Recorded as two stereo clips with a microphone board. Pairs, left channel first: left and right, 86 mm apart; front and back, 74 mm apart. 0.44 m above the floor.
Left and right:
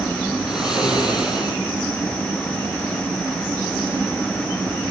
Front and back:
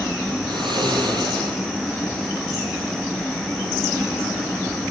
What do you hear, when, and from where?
0.5 s snoring: 175° right, 5.5 m